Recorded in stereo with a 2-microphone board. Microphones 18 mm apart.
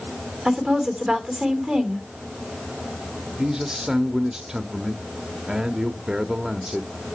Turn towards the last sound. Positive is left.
turn(degrees=-35)  # may be behind; listen again after turning